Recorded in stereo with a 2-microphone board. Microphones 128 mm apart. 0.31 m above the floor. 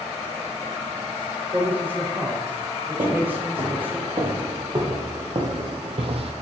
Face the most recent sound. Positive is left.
turn(degrees=-55)  # may be behind; listen again after turning